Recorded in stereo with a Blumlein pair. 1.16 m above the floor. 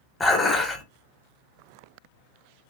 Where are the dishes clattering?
10° left, 0.7 m.